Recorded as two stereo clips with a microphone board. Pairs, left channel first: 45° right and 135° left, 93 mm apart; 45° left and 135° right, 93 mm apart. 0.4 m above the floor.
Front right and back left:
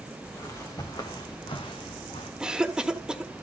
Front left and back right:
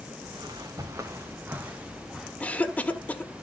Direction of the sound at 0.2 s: 100° right.